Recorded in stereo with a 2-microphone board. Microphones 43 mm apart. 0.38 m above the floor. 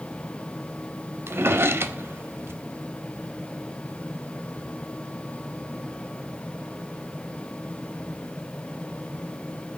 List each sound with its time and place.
1.3 s a drawer: 70° right (ahead or behind), 0.7 m